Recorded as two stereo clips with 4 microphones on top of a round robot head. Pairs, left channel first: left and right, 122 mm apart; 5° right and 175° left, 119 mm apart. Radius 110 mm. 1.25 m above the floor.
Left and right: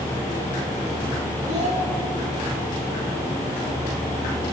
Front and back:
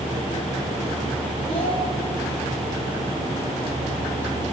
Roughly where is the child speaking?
Ahead right.